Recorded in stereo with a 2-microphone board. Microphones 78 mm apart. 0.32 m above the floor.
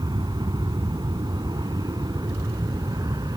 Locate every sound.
0.0 s an aircraft: 65° right (ahead or behind); by 3.4 s 60° right (ahead or behind)